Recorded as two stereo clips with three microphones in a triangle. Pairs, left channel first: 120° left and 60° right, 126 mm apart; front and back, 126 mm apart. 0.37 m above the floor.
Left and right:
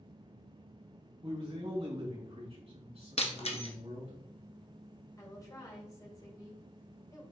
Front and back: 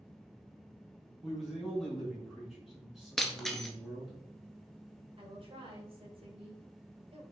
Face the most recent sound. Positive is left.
turn(degrees=170)